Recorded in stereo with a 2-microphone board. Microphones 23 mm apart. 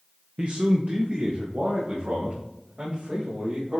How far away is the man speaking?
About 0.6 m.